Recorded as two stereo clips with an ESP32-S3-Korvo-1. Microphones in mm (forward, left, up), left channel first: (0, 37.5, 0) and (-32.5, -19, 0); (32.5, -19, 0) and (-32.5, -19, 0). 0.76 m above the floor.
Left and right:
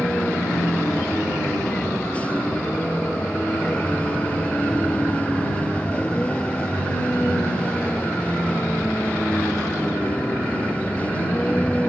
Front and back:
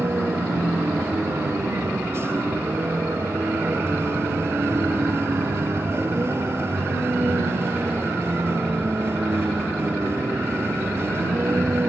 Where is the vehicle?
130° left.